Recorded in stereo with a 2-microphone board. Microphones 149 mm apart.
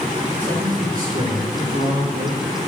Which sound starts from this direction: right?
A man speaking, at 0.4 s.